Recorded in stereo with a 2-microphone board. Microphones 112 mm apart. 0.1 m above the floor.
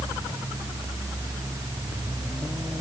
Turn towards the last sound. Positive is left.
No sound to turn to.